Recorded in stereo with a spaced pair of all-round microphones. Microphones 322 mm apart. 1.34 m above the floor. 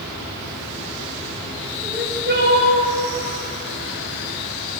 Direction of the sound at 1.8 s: 30° right (ahead or behind).